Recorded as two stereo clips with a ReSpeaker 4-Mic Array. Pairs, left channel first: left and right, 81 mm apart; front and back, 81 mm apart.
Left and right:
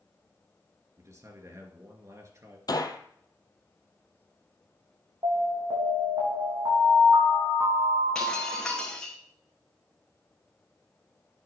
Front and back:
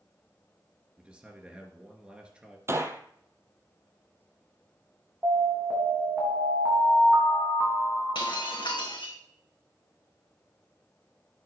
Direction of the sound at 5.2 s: 115° right.